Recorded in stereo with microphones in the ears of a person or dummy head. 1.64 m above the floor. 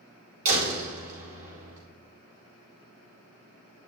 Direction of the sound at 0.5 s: 45° right (ahead or behind).